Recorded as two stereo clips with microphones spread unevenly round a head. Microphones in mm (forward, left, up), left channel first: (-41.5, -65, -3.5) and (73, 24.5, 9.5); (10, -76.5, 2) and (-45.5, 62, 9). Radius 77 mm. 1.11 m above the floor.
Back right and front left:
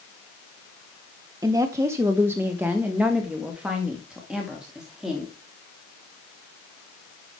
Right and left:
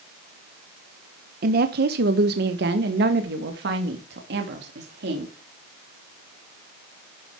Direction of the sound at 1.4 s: 105° left.